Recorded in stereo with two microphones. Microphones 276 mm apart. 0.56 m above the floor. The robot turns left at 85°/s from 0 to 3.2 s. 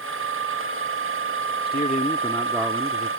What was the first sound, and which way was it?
A man speaking, 70° left.